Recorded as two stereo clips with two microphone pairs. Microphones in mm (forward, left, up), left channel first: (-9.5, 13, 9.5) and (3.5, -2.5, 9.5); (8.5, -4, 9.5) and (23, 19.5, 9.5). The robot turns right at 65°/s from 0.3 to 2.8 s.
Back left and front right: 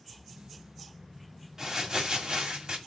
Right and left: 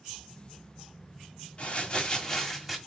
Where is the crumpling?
100° right, 1.9 m; by 2.8 s 25° right, 1.9 m.